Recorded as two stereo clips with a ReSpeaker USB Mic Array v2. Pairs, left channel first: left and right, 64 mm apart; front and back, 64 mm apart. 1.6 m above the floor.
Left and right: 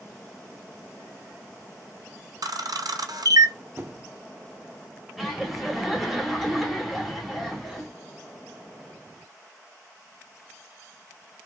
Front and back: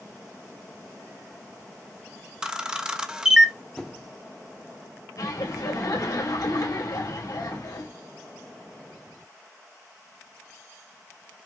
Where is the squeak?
80° right, 0.6 m.